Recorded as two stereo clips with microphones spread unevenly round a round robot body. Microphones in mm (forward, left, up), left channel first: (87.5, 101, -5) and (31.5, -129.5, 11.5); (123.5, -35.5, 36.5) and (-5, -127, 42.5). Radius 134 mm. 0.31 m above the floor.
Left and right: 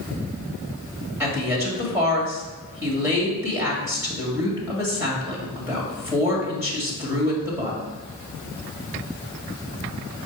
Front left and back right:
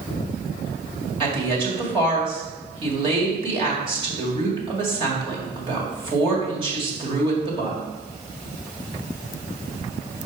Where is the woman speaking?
175° left, 1.8 m.